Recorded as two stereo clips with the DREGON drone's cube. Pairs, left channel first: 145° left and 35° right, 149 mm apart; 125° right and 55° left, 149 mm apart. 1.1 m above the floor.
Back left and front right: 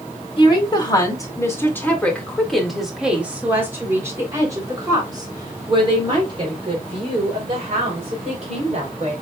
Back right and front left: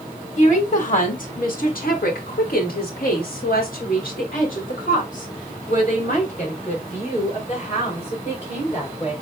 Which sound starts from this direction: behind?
A woman speaking, at 0.4 s.